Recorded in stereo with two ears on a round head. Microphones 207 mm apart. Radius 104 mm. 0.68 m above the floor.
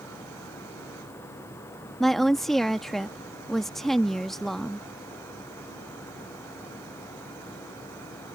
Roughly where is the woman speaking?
Centre.